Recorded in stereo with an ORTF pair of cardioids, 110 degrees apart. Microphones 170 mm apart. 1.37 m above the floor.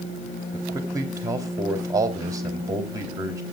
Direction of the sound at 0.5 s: 20° right.